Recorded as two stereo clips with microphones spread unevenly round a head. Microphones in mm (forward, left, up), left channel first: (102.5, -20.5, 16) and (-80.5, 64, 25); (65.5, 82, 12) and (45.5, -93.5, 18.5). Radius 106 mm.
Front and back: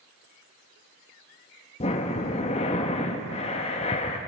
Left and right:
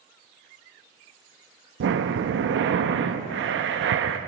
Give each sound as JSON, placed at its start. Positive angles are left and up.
{"t": 1.8, "sound": "breathing", "azimuth_deg": -85, "distance_m": 0.8}